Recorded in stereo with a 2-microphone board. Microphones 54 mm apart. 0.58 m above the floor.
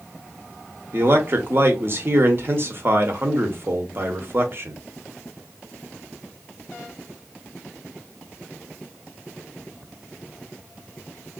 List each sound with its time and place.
0.9 s a man speaking: 45° right (ahead or behind), 0.9 m